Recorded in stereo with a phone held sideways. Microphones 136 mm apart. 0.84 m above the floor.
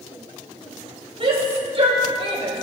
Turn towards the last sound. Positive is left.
turn(degrees=-45)  # may be behind; listen again after turning